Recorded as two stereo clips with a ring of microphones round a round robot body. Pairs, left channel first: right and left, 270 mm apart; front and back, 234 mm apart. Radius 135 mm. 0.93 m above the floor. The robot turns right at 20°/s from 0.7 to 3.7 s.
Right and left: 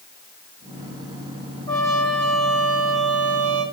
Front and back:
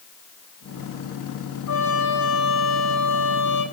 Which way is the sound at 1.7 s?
15° right.